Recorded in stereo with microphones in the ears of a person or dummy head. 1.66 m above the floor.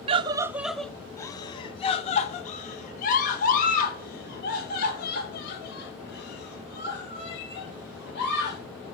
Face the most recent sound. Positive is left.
turn(degrees=60)  # may be behind; listen again after turning